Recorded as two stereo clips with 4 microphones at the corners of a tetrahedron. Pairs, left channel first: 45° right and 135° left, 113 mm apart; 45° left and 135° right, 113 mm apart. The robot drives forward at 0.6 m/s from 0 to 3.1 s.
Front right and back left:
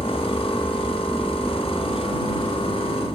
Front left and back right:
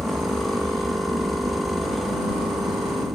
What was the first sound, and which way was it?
An aircraft, 110° right.